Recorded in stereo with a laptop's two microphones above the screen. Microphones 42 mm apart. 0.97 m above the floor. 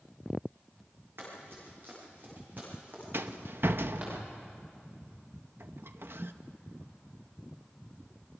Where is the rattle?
60° right (ahead or behind), 0.7 m.